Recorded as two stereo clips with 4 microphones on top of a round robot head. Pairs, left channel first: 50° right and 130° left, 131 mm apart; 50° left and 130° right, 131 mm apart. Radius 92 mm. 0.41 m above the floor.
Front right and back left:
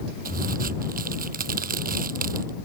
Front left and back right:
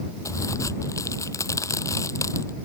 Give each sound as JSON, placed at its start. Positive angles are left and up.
{"t": 0.2, "sound": "a crack", "azimuth_deg": 115}